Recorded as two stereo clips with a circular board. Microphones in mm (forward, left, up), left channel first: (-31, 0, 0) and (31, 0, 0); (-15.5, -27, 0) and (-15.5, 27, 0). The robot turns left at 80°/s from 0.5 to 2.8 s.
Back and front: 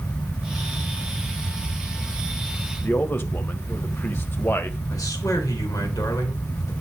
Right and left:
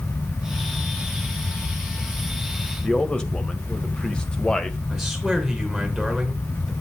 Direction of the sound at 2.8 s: 150° right.